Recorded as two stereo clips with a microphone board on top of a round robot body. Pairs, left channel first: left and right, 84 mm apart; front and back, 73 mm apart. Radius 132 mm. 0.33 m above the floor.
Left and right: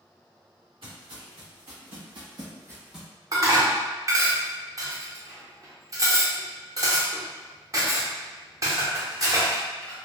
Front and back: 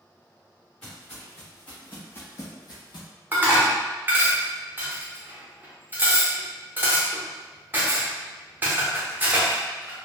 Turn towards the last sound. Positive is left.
turn(degrees=-125)